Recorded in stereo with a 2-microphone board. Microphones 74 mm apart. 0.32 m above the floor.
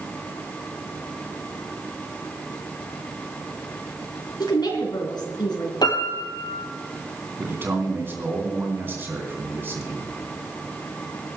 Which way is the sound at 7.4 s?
30° right (ahead or behind).